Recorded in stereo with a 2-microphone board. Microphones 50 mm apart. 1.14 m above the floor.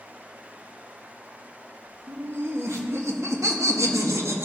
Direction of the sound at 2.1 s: 55° right (ahead or behind).